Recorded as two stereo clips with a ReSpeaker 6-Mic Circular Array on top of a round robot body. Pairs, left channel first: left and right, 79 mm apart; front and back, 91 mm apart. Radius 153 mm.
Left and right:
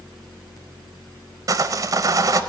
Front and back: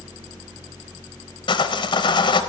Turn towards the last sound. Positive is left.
turn(degrees=-40)